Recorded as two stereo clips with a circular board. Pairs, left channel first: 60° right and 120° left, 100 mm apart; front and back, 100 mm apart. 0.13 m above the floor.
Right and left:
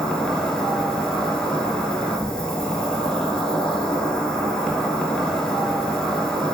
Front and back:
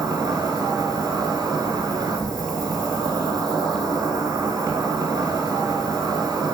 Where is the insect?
140° right, 0.9 m.